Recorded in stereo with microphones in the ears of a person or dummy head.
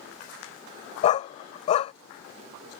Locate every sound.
1.0 s a dog barking: 35° left (ahead or behind)